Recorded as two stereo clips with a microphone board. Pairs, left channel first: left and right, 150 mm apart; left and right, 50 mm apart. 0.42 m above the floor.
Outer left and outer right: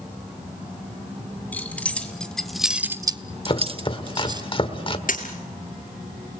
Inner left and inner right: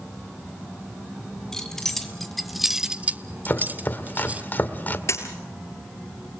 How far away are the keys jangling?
About 2.5 m.